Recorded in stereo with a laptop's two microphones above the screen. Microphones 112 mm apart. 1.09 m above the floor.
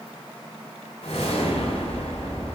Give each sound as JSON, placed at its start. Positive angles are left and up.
{"t": 1.0, "sound": "a whoosh", "side_deg": 80, "distance_m": 2.0}